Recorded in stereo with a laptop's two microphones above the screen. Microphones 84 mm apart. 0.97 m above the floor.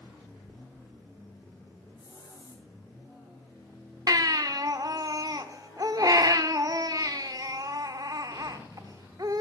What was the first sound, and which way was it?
A hiss, 65° left (ahead or behind).